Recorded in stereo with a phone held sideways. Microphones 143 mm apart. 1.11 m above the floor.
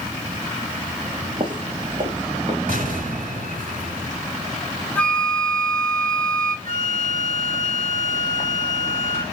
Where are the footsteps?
55° right (ahead or behind), 2.5 m; by 2.6 s 60° right (ahead or behind), 4 m.